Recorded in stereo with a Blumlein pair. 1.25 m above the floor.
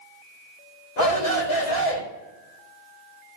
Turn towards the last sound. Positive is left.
turn(degrees=45)